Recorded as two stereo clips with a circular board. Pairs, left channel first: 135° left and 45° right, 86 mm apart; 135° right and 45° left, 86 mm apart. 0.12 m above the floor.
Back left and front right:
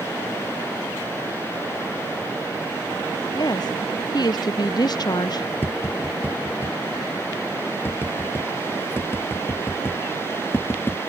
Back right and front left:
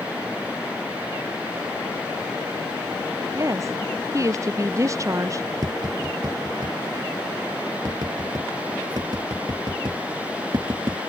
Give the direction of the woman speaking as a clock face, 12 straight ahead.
9 o'clock.